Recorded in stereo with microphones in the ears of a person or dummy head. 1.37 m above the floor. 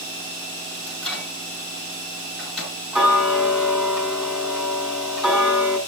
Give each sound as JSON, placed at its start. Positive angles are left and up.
{"t": 0.9, "sound": "a microwave", "side_deg": 5, "distance_m": 10.0}
{"t": 2.9, "sound": "ticking", "side_deg": -5, "distance_m": 4.0}